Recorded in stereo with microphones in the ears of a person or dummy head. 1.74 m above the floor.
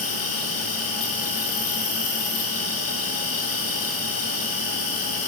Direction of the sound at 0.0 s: 80° left.